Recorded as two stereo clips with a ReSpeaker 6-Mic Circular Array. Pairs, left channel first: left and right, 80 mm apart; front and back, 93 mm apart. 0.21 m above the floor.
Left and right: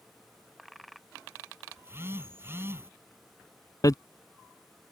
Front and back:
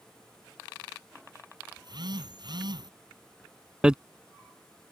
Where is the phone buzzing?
150° right.